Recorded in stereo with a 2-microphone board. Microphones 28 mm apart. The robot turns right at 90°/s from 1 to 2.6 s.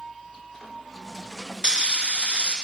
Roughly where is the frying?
Behind right.